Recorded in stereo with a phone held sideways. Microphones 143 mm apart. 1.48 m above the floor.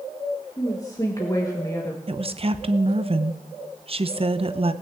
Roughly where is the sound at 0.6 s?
Left.